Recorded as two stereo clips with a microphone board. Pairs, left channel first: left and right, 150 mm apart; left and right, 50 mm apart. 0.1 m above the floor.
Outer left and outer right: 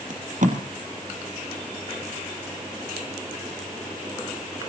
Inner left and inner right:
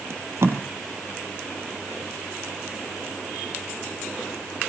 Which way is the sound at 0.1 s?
60° right (ahead or behind).